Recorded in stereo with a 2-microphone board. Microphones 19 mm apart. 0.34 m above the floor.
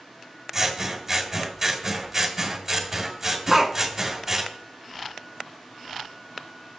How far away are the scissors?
About 2 m.